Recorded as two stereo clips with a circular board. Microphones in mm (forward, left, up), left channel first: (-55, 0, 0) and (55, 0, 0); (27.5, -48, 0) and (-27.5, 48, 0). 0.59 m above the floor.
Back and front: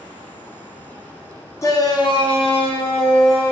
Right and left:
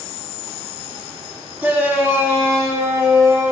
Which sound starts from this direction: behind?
A shout, at 1.6 s.